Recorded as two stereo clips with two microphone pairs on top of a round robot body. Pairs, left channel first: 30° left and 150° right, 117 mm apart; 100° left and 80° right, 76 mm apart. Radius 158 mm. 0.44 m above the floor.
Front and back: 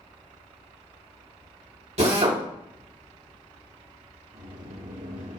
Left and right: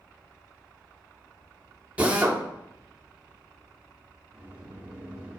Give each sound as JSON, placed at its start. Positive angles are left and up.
{"t": 2.0, "sound": "a drill", "azimuth_deg": -150, "distance_m": 3.0}
{"t": 4.3, "sound": "a sliding door", "azimuth_deg": -145, "distance_m": 3.5}